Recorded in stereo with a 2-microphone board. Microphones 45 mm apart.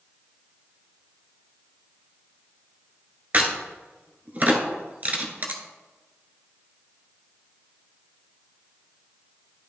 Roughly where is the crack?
Right.